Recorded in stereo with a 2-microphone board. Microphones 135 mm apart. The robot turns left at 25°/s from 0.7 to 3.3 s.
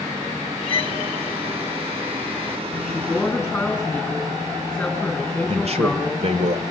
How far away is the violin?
About 0.7 m.